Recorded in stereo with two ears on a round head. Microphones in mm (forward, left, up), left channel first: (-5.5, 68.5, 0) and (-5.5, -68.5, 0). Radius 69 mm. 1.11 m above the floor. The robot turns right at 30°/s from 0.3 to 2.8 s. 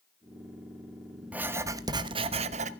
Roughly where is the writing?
Behind.